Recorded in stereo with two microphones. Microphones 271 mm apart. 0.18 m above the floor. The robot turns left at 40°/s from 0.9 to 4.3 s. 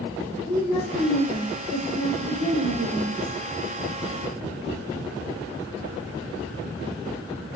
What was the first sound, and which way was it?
A woman speaking, straight ahead.